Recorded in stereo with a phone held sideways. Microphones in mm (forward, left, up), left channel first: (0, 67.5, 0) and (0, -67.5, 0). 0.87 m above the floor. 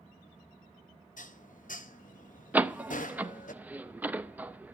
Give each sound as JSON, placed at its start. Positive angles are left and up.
{"t": 1.2, "sound": "dishes clattering", "side_deg": 75, "distance_m": 0.7}
{"t": 2.5, "sound": "a door slam", "side_deg": -10, "distance_m": 0.5}